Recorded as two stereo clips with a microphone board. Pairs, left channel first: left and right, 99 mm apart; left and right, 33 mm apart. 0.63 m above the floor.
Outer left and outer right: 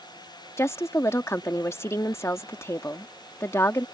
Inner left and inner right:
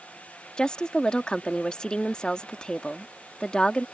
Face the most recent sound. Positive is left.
turn(degrees=30)  # may be behind; listen again after turning